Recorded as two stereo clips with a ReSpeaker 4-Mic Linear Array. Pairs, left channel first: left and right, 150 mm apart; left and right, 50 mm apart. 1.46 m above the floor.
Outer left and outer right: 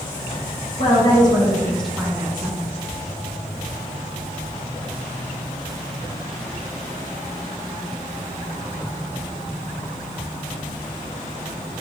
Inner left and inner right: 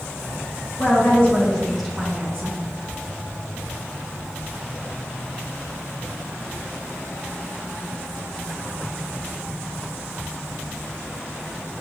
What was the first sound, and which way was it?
A woman speaking, 40° left (ahead or behind).